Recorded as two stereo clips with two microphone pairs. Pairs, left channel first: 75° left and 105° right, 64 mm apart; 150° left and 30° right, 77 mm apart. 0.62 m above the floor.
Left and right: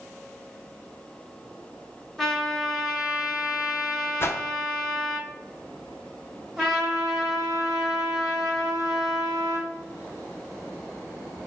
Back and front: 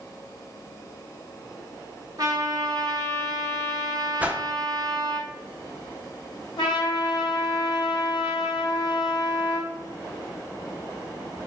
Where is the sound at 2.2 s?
10° right, 1.0 m.